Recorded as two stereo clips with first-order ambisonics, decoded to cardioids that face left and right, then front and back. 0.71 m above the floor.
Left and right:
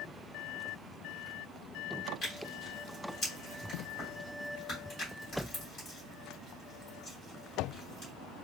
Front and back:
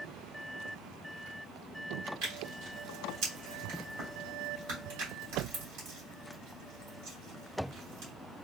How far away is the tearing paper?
About 2.5 m.